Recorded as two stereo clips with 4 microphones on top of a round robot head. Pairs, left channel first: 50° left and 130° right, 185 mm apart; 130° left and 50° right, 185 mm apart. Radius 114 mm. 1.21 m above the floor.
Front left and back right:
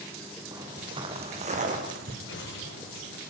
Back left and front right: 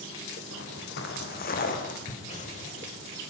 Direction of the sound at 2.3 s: 80° left.